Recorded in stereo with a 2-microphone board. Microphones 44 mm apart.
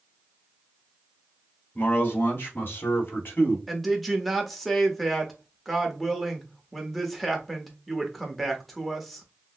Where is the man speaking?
45° left (ahead or behind), 1.4 m; by 3.6 s 60° left (ahead or behind), 2.5 m.